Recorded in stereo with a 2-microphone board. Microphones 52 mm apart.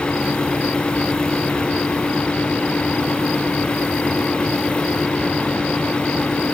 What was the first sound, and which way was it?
Only background noise.